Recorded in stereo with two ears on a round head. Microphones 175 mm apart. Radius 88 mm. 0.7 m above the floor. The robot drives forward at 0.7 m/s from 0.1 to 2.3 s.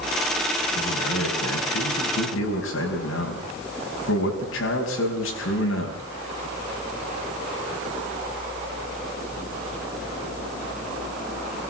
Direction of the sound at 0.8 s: 80° left.